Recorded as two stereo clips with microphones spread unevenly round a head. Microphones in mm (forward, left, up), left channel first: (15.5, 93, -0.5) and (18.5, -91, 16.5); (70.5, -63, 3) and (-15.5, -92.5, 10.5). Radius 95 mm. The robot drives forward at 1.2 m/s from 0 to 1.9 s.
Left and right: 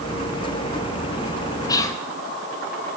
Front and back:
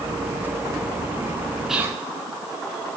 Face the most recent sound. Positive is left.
turn(degrees=145)